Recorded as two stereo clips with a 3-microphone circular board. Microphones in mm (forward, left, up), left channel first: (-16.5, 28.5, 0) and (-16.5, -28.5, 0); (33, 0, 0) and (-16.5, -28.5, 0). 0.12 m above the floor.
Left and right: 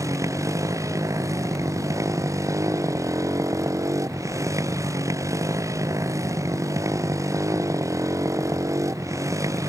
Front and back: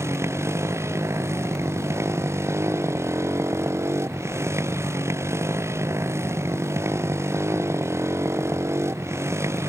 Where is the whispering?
No whispering in this recording.